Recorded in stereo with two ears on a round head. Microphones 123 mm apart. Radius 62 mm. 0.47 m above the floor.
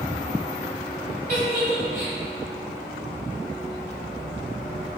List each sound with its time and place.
1.3 s a giggle: 65° right (ahead or behind), 1.9 m